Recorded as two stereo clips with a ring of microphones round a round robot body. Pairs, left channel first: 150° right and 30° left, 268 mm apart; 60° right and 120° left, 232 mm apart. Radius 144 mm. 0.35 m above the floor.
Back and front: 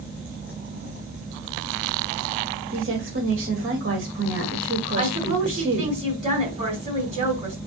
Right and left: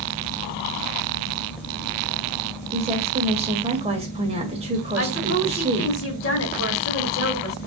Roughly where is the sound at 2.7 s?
Ahead left.